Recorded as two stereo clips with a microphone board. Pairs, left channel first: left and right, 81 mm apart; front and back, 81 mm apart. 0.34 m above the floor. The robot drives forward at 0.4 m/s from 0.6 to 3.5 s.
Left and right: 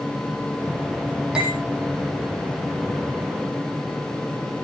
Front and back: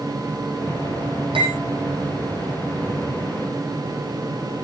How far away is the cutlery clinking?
About 7.5 m.